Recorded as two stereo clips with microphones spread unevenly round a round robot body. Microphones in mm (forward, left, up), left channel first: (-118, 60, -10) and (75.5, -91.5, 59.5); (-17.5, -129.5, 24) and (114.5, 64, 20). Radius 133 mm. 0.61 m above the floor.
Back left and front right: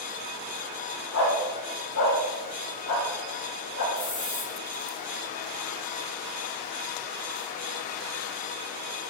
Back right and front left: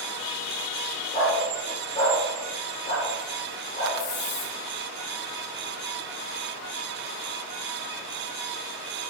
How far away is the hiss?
About 4 m.